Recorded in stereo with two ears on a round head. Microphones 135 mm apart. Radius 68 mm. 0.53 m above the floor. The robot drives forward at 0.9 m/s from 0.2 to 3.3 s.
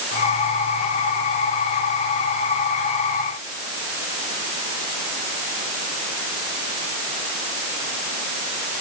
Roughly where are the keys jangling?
I don't hear keys jangling.